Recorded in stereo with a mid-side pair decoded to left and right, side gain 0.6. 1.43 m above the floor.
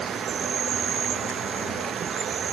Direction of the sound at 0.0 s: 40° right.